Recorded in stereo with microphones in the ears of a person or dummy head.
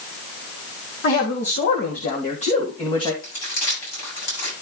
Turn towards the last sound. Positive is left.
turn(degrees=80)